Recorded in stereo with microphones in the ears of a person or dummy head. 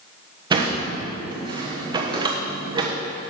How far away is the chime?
I don't hear a chime.